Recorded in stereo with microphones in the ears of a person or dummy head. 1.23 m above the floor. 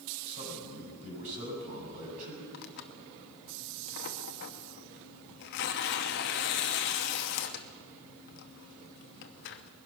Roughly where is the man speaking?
Right.